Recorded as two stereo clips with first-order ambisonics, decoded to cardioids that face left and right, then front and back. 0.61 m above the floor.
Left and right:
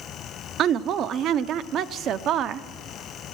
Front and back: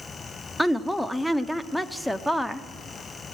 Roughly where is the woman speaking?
Right.